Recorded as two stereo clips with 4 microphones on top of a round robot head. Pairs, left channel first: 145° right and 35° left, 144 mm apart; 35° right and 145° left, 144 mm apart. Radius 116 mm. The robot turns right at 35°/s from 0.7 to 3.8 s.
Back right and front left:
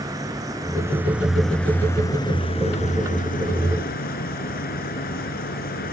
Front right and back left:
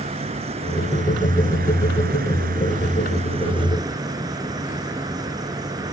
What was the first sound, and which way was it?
An insect, 100° left.